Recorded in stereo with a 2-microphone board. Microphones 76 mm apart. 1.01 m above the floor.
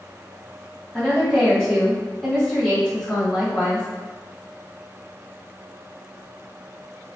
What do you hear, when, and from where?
0.9 s a woman speaking: 10° left (ahead or behind), 1.8 m